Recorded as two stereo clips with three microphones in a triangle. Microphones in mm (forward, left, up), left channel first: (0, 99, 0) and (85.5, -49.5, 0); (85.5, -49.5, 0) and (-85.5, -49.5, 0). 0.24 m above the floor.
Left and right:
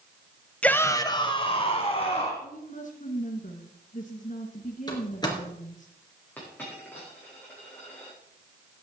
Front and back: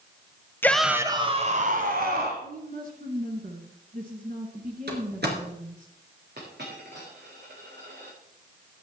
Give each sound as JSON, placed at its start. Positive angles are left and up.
{"t": 0.6, "sound": "a shout", "azimuth_deg": 50, "distance_m": 1.1}
{"t": 2.4, "sound": "a woman speaking", "azimuth_deg": 155, "distance_m": 2.5}
{"t": 4.9, "sound": "a door slam", "azimuth_deg": -175, "distance_m": 3.0}
{"t": 6.4, "sound": "a dropped coin", "azimuth_deg": -160, "distance_m": 7.0}